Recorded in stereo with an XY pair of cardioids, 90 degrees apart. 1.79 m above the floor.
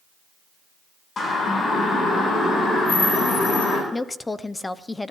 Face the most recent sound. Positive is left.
turn(degrees=20)